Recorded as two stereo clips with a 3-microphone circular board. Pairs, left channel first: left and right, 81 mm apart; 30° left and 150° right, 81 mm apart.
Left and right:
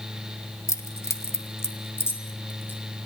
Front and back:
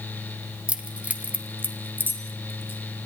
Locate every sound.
0.7 s keys jangling: 135° left, 1.9 m; by 2.8 s 150° left, 3 m